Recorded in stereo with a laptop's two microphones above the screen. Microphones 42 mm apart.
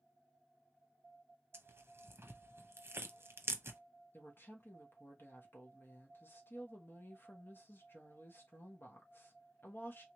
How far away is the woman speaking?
About 1.1 m.